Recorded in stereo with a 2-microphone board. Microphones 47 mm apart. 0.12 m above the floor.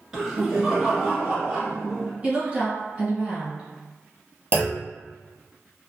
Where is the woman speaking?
25° right (ahead or behind), 1.6 m.